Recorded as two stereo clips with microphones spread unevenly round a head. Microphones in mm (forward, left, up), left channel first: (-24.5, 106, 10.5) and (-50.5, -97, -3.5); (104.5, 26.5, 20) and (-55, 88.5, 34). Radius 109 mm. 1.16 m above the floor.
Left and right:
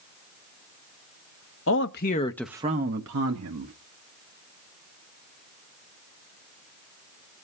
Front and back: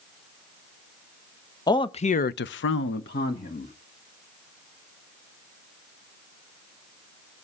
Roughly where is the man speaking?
Ahead left.